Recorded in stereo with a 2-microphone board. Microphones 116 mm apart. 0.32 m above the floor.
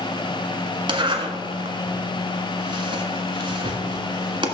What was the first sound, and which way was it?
A zipper, 45° right (ahead or behind).